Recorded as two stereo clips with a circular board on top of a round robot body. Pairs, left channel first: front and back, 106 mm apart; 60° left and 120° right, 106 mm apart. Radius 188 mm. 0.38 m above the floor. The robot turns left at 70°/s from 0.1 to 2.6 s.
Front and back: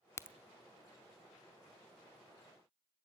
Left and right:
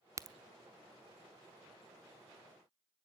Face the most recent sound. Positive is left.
turn(degrees=130)